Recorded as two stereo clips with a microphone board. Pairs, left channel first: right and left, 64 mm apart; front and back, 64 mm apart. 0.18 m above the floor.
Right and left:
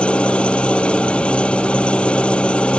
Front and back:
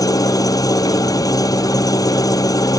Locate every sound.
0.0 s an engine running: 15° right